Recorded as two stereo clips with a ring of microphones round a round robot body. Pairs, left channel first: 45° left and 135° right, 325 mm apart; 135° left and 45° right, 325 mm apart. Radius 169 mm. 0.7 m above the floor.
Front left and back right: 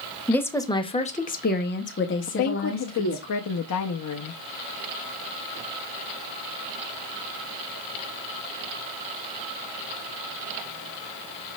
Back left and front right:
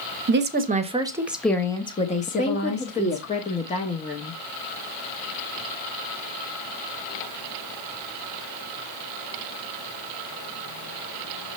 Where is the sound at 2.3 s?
70° left, 0.7 m.